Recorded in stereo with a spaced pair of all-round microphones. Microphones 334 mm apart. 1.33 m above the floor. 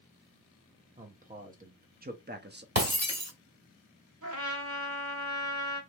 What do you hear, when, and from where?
1.0 s a man speaking: 20° right (ahead or behind), 1.3 m; by 2.6 s 30° right (ahead or behind), 0.6 m
2.8 s breaking glass: 45° right (ahead or behind), 1.3 m
4.2 s a trumpet: 55° right (ahead or behind), 1.4 m